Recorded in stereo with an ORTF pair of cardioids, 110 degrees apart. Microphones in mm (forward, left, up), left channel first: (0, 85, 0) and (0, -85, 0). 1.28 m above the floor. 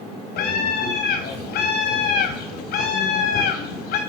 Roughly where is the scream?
Ahead left.